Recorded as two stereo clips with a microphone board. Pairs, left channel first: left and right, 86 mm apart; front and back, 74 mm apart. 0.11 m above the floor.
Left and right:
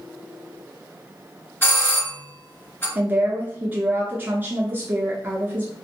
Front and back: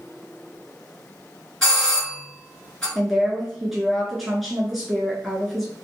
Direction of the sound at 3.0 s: 90° right.